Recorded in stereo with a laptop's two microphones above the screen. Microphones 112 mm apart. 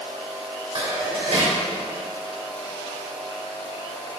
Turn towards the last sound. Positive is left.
turn(degrees=-70)  # may be behind; listen again after turning